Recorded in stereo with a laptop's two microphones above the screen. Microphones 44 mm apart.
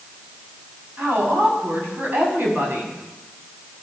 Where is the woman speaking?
55° right (ahead or behind), 6.5 m.